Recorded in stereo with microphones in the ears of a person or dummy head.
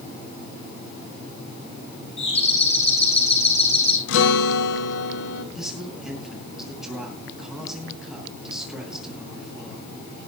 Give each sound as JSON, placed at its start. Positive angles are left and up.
{"t": 2.2, "sound": "a doorbell", "side_deg": 35, "distance_m": 7.0}
{"t": 4.1, "sound": "a guitar", "side_deg": 80, "distance_m": 3.0}
{"t": 5.5, "sound": "a man speaking", "side_deg": -5, "distance_m": 9.5}